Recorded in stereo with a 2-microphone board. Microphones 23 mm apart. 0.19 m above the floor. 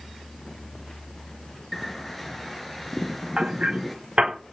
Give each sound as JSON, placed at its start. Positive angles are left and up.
{"t": 1.7, "sound": "a bird", "side_deg": 5, "distance_m": 3.5}
{"t": 3.4, "sound": "hammering", "side_deg": -60, "distance_m": 8.5}